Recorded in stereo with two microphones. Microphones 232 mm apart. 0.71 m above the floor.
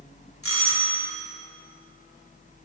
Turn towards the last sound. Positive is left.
turn(degrees=70)  # may be behind; listen again after turning